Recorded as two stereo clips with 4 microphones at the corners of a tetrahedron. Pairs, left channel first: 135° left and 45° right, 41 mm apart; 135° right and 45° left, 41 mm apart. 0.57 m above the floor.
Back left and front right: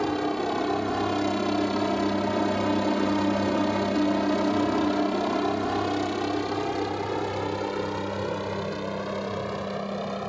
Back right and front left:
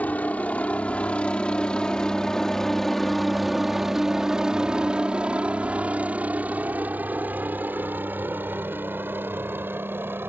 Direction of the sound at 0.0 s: 145° right.